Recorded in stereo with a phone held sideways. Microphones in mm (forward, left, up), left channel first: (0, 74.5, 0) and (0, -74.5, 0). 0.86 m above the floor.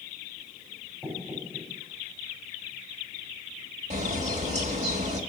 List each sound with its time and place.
1.0 s knocking: 10° left (ahead or behind), 5 m
3.9 s a bird: 50° right (ahead or behind), 1.7 m